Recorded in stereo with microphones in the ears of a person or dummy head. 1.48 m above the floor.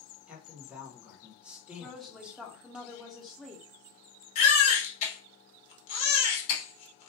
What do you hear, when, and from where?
0.3 s a man speaking: 10° right (ahead or behind), 0.9 m
1.8 s a woman speaking: 5° left (ahead or behind), 0.6 m
4.3 s a baby crying: 40° left (ahead or behind), 1.0 m